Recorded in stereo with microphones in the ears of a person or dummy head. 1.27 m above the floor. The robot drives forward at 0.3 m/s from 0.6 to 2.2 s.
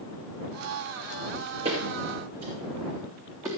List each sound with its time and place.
1.6 s footsteps: 30° right (ahead or behind), 4 m; by 3.5 s 20° right (ahead or behind), 3.5 m